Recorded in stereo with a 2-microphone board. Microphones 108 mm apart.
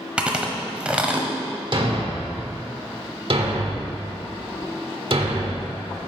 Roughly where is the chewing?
Centre.